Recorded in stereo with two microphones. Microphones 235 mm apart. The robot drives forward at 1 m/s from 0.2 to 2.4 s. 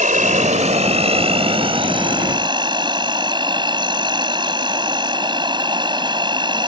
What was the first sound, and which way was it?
An insect, 35° right (ahead or behind).